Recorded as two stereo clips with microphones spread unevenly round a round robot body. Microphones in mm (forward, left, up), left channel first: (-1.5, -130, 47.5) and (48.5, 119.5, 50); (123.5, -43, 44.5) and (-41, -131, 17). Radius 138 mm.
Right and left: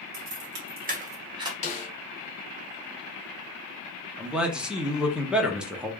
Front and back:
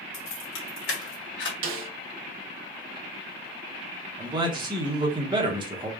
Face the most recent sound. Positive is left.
turn(degrees=165)